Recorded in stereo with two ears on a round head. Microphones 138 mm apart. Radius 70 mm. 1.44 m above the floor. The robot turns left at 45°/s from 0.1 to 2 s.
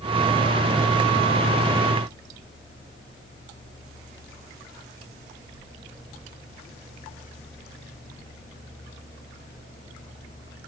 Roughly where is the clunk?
I don't hear a clunk.